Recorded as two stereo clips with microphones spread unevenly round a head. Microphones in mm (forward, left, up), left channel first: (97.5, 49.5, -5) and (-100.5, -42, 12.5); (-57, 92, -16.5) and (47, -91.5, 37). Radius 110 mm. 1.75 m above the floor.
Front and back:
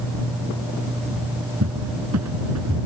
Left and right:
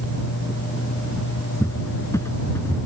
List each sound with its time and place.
1.6 s a cupboard door: 160° right